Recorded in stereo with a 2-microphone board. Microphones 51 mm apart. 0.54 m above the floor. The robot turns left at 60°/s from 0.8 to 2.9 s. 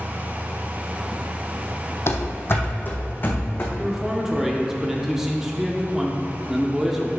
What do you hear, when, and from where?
2.1 s running footsteps: 55° left (ahead or behind), 0.9 m; by 3.7 s 45° left (ahead or behind), 1.6 m
3.8 s a man speaking: 10° right (ahead or behind), 0.8 m